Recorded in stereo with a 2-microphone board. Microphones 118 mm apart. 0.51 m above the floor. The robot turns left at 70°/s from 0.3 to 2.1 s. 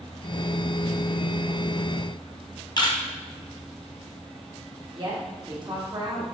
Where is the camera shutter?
35° left (ahead or behind), 0.5 m.